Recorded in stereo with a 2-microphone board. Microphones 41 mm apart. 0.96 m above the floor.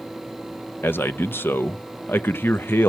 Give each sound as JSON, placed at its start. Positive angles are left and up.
{"t": 0.8, "sound": "a man speaking", "side_deg": 60, "distance_m": 0.6}